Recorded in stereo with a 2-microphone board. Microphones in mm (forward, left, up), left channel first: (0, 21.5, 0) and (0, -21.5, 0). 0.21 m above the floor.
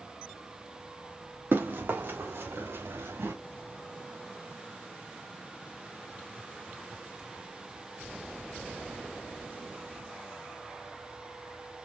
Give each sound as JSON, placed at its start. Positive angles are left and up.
{"t": 1.5, "sound": "running footsteps", "side_deg": -60, "distance_m": 2.0}